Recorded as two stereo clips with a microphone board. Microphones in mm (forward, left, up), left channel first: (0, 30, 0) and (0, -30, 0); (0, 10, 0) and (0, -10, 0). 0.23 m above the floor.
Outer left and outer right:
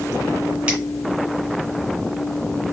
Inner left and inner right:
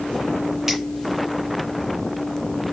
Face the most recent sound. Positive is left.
turn(degrees=-20)  # may be behind; listen again after turning